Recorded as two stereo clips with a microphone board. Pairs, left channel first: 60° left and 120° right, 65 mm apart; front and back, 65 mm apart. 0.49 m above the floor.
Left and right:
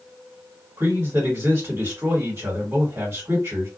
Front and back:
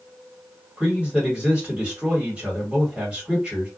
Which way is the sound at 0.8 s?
115° right.